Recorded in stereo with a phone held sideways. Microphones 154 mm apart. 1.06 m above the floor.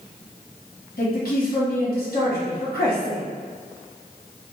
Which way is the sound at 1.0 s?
80° left.